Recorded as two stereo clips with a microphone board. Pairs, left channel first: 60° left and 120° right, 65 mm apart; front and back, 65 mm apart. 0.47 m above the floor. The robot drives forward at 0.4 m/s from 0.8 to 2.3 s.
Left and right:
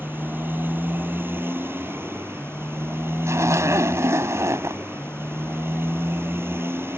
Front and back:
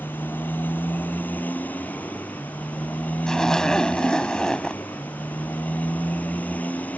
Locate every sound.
0.0 s a motorcycle: 60° right; by 7.0 s 65° right
3.3 s a zipper: 80° right